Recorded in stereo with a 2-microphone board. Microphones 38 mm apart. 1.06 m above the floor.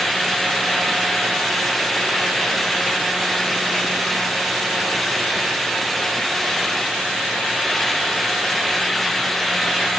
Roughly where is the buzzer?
No buzzer in this recording.